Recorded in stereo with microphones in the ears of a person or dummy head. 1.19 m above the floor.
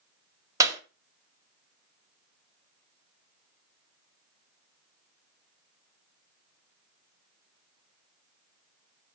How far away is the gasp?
I don't hear a gasp.